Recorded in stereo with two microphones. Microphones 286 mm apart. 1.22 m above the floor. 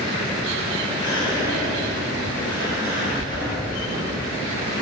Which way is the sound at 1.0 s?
15° left (ahead or behind).